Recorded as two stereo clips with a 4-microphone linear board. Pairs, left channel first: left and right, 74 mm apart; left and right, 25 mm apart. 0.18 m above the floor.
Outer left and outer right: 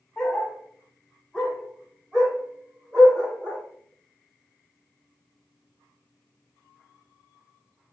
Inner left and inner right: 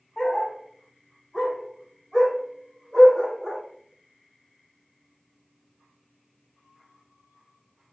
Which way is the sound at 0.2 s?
5° left (ahead or behind).